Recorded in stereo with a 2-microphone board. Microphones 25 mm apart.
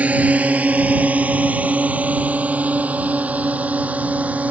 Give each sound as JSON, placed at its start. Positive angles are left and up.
{"t": 0.0, "sound": "a drone", "side_deg": -70}